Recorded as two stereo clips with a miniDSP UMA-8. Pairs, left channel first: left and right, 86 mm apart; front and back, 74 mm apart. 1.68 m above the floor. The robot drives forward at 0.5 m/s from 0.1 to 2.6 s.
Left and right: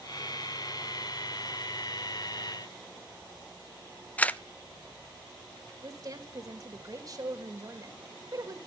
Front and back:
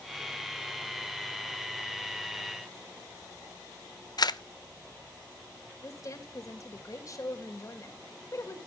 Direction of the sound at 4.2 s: 15° left.